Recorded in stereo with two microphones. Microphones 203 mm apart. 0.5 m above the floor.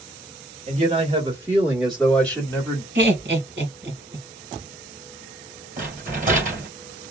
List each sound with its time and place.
0.7 s a man speaking: 30° right (ahead or behind), 1.4 m; by 2.9 s 20° left (ahead or behind), 1.5 m
3.0 s laughter: 60° right (ahead or behind), 1.9 m
5.8 s a rattle: 40° right (ahead or behind), 2 m